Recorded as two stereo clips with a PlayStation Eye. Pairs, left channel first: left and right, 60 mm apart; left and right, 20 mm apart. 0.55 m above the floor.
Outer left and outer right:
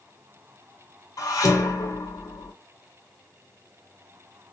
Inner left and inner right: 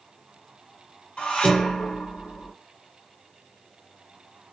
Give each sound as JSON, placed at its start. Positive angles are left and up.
{"t": 1.2, "sound": "dishes clattering", "side_deg": 75, "distance_m": 1.1}